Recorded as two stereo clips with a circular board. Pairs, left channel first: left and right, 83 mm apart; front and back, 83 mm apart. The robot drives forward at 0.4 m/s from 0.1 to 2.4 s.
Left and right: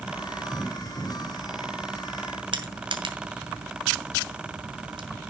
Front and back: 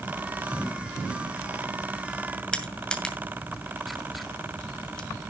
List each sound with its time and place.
2.5 s crushing: 80° right, 2 m